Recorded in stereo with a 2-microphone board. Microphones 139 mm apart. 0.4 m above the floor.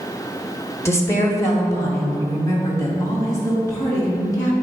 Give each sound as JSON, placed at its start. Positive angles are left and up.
{"t": 0.8, "sound": "a woman speaking", "side_deg": 20, "distance_m": 1.3}